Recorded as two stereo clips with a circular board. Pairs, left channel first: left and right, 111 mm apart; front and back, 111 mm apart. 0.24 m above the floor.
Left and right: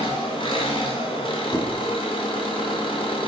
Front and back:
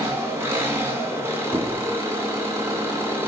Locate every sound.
0.0 s an engine running: 115° left, 2.5 m
1.5 s a squeak: 135° left, 2 m